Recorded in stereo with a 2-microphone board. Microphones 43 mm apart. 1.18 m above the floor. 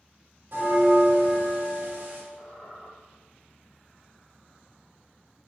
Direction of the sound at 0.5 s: 65° right (ahead or behind).